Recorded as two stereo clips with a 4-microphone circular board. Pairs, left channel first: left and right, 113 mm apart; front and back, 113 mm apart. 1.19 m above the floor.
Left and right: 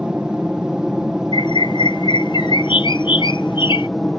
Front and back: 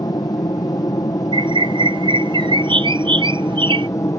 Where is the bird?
135° left.